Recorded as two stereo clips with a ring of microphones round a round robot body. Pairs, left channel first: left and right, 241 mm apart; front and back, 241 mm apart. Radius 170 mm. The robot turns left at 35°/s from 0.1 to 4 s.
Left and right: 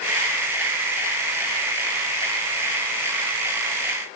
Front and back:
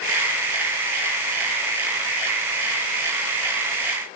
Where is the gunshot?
I don't hear a gunshot.